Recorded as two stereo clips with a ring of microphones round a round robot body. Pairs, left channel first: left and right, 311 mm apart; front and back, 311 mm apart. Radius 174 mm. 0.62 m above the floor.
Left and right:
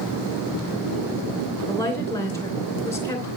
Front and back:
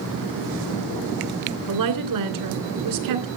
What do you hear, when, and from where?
1.7 s a woman speaking: 170° left, 2.5 m